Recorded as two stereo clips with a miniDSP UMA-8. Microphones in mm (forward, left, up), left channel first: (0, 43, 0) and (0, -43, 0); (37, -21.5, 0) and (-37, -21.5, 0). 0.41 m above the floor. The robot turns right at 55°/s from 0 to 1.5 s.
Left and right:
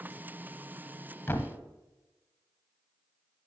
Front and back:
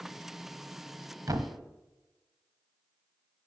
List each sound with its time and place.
1.3 s a thud: 155° left, 1.0 m; by 1.6 s 170° left, 1.0 m